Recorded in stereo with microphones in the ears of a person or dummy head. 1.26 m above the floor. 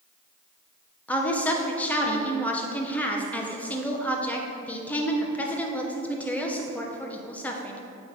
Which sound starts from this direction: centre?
A woman speaking, at 1.1 s.